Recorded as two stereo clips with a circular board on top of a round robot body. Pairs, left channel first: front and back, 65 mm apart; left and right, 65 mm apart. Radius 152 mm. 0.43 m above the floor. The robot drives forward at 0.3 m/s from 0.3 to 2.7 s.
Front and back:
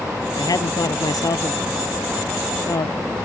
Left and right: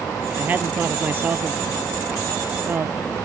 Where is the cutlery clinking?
No cutlery clinking in this recording.